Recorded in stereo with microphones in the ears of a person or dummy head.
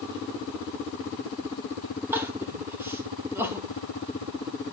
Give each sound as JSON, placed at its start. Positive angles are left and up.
{"t": 2.1, "sound": "crying", "side_deg": -15, "distance_m": 1.4}